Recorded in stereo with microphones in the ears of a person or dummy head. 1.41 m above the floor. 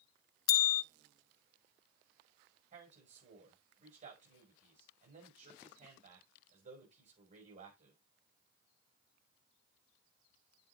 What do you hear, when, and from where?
0.5 s a bell: 55° left (ahead or behind), 0.6 m
2.7 s a man speaking: 45° right (ahead or behind), 7 m